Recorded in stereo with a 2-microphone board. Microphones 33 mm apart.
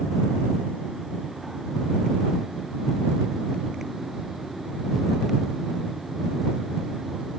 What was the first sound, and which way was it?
Only background noise.